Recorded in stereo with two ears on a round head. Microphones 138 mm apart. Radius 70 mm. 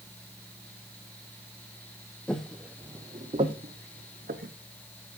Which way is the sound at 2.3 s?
5° left (ahead or behind).